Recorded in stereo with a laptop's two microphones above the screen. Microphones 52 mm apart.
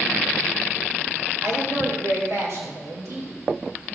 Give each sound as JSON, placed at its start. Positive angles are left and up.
{"t": 1.4, "sound": "a woman speaking", "side_deg": -70, "distance_m": 2.5}